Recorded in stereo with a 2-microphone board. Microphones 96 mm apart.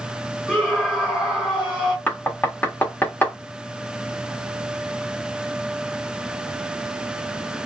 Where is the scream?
10° left (ahead or behind), 1.5 m.